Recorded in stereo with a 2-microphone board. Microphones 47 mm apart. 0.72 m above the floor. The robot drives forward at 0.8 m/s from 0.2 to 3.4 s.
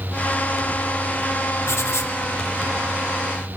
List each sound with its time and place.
1.7 s writing: 80° left, 0.9 m; by 2.1 s 65° left (ahead or behind), 1.0 m